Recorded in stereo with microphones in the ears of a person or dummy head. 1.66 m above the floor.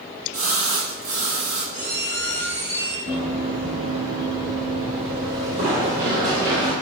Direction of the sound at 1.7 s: 35° right (ahead or behind).